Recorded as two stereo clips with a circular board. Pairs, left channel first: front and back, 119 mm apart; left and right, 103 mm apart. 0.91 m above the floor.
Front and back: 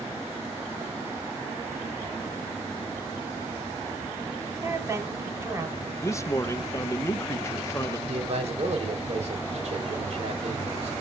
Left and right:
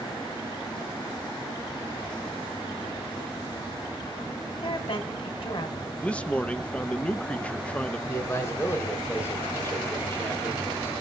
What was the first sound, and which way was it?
A woman speaking, 115° left.